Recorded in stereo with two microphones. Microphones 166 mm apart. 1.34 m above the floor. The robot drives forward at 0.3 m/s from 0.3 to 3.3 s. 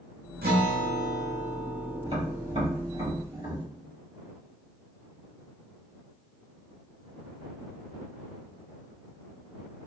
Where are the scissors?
I don't hear scissors.